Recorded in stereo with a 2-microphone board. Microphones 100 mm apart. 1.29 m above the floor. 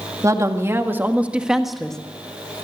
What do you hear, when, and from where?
0.2 s a woman speaking: 35° right (ahead or behind), 2.0 m; by 2.0 s 5° left (ahead or behind), 1.5 m